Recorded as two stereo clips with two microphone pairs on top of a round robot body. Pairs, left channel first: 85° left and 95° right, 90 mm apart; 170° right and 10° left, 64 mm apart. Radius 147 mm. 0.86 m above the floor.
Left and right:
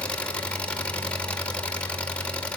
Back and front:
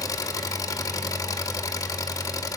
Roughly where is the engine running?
Behind.